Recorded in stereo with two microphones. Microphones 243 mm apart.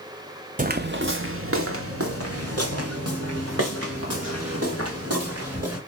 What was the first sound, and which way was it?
Footsteps, 35° right (ahead or behind).